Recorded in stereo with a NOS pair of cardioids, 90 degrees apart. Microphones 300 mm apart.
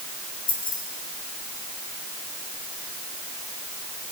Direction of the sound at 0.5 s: 30° left.